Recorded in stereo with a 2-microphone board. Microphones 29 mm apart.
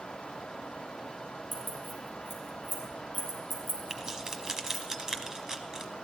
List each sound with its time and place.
1.5 s keys jangling: centre (ahead or behind), 4 m
3.9 s keys jangling: 15° right (ahead or behind), 1.1 m